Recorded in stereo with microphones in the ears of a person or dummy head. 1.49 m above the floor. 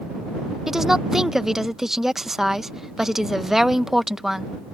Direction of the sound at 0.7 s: Centre (ahead or behind).